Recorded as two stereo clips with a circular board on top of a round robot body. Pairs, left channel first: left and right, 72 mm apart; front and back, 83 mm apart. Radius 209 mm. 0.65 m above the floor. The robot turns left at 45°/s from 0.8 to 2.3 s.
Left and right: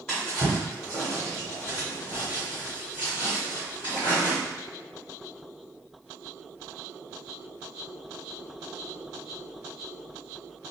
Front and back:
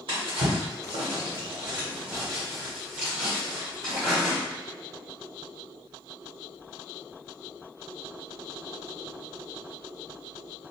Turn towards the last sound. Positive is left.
turn(degrees=100)